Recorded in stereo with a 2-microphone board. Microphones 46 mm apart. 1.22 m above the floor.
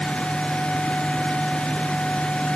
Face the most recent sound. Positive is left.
No sound to turn to.